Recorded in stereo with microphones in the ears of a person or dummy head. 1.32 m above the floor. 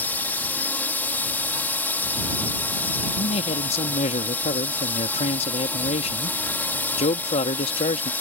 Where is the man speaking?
40° left (ahead or behind).